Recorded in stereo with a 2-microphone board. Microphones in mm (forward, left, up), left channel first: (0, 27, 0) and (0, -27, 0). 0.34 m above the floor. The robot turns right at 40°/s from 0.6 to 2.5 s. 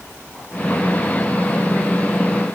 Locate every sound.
Only background noise.